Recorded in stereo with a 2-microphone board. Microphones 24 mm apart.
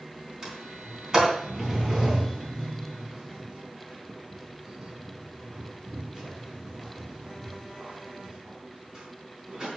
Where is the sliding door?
35° right (ahead or behind), 3.5 m.